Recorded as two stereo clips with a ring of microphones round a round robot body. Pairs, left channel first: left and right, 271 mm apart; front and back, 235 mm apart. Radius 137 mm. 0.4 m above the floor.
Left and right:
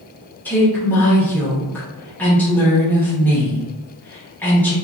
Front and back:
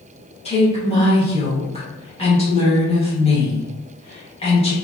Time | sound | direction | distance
0.5 | a woman speaking | 15° left | 1.0 m